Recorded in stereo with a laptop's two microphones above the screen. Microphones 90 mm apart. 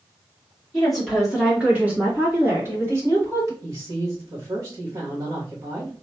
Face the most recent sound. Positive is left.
turn(degrees=-40)  # may be behind; listen again after turning